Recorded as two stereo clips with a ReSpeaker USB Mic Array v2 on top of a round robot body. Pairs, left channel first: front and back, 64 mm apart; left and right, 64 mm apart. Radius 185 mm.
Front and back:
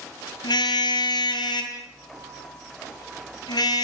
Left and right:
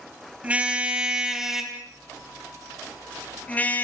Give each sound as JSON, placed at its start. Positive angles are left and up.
{"t": 0.4, "sound": "a car horn", "azimuth_deg": -20, "distance_m": 3.0}